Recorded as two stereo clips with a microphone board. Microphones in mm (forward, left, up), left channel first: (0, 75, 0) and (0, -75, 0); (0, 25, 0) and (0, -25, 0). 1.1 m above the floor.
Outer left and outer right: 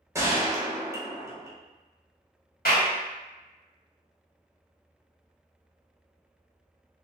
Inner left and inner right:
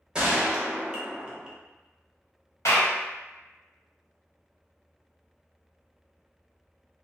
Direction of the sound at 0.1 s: 20° right (ahead or behind).